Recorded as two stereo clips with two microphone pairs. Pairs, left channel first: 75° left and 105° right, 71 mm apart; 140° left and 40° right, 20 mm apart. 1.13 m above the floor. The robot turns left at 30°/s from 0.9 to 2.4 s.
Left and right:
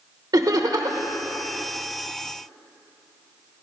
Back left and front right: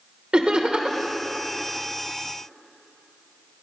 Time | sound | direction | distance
0.3 | laughter | 85° right | 0.9 m